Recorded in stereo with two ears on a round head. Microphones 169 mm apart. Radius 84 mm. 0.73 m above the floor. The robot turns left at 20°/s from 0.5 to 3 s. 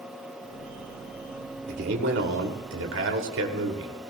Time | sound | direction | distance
1.7 | a man speaking | 60° right (ahead or behind) | 2.5 m